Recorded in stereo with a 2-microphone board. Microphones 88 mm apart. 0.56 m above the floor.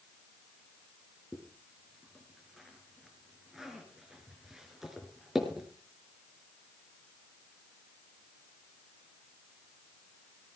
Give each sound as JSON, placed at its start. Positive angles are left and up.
{"t": 1.3, "sound": "a zipper", "side_deg": -5, "distance_m": 4.0}